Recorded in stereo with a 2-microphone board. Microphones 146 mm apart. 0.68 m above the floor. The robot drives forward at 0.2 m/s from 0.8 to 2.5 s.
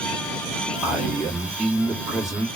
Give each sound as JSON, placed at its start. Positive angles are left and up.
{"t": 0.8, "sound": "a man speaking", "side_deg": -5, "distance_m": 1.2}